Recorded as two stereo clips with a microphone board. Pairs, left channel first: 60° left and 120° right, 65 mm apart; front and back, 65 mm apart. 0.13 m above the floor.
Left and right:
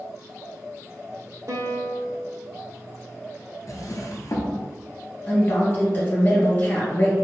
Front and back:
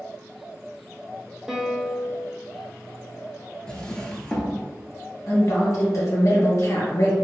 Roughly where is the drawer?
Left.